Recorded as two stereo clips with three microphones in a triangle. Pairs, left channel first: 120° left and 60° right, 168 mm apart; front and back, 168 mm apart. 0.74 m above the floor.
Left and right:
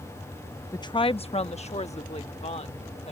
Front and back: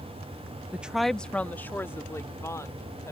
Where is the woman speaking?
120° left; by 3.1 s 70° left.